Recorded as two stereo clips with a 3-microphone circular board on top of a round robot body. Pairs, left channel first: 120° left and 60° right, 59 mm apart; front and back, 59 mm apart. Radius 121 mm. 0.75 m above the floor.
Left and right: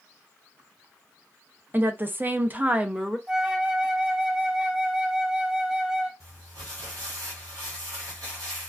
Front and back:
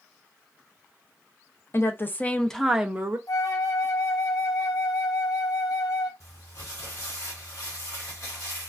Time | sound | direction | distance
1.7 | a woman speaking | 20° right | 0.7 m
3.3 | a flute | 15° left | 0.7 m
6.2 | crumpling | 35° right | 1.5 m